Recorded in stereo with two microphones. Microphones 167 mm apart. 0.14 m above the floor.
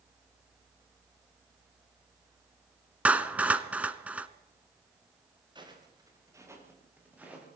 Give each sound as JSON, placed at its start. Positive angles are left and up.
{"t": 3.0, "sound": "a clap", "side_deg": -10, "distance_m": 1.0}
{"t": 5.5, "sound": "footsteps", "side_deg": -25, "distance_m": 6.0}